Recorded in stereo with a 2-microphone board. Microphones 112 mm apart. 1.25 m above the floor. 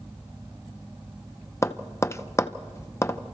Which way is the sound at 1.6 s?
25° left (ahead or behind).